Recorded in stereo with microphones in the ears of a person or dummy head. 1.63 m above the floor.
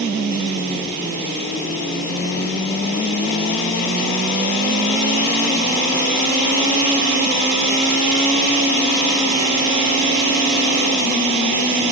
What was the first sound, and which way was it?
Only background noise.